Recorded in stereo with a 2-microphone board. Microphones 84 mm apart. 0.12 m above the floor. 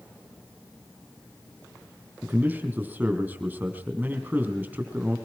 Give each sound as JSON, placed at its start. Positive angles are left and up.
{"t": 2.2, "sound": "a man speaking", "side_deg": -20, "distance_m": 4.0}